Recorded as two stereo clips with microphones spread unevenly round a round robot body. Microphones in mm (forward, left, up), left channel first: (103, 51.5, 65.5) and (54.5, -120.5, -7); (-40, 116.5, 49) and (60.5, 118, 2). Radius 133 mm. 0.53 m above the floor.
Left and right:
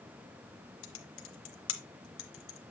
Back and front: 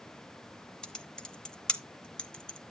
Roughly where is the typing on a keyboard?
Left.